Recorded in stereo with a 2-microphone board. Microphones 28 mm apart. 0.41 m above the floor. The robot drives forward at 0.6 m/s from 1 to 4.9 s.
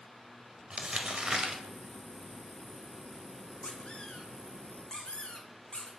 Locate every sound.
0.7 s crumpling: 35° right (ahead or behind), 1.4 m; by 1.6 s 30° right (ahead or behind), 1.6 m
3.6 s a squeak: 35° left (ahead or behind), 1.8 m; by 5.9 s 25° left (ahead or behind), 2.5 m